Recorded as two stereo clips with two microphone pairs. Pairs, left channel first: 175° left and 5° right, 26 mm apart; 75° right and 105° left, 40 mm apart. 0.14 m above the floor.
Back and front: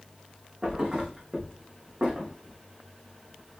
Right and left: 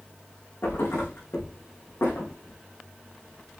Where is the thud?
60° right, 5 m.